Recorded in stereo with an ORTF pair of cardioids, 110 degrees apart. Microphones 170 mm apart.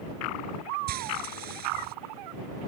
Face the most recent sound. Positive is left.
turn(degrees=-65)